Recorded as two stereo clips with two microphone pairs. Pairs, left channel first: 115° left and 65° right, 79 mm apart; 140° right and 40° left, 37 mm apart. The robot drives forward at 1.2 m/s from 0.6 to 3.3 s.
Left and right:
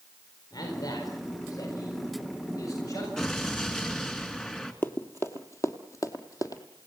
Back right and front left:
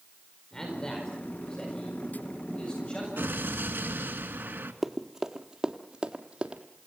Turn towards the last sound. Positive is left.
turn(degrees=90)